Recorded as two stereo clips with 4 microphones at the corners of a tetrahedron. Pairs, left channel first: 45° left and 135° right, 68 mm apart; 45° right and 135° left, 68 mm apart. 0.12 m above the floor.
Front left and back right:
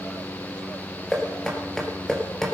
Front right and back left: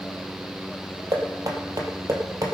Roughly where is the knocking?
Behind left.